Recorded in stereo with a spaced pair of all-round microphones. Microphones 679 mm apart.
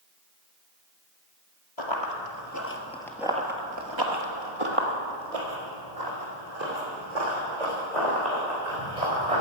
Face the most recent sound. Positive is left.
turn(degrees=-75)  # may be behind; listen again after turning